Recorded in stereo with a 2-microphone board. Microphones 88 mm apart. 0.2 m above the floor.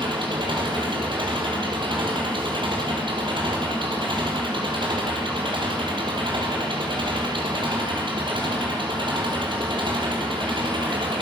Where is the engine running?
70° right (ahead or behind), 5 m.